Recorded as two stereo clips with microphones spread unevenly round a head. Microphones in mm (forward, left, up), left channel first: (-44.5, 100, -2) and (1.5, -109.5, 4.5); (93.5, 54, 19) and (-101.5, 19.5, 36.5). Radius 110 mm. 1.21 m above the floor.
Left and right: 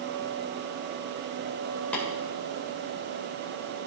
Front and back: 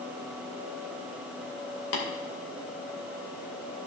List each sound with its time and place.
1.9 s tapping: 20° left, 2 m